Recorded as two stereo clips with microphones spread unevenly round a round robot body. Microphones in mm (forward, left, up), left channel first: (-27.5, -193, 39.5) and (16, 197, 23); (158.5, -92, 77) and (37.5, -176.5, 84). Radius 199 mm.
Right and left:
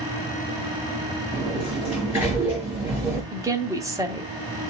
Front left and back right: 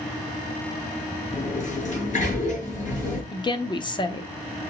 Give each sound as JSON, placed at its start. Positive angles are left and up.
{"t": 1.3, "sound": "a sliding door", "azimuth_deg": -5, "distance_m": 5.5}
{"t": 3.3, "sound": "a woman speaking", "azimuth_deg": 10, "distance_m": 1.0}